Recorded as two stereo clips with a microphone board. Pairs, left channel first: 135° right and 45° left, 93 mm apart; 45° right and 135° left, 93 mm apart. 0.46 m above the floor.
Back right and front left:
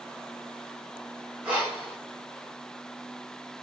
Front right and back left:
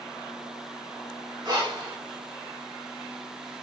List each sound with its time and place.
1.4 s breathing: 120° left, 2 m